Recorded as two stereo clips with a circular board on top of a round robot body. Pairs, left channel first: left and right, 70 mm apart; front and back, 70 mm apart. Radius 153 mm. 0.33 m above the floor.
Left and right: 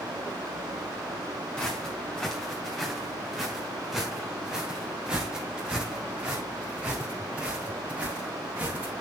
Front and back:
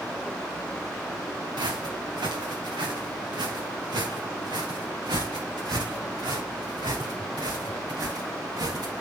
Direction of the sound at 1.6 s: 170° left.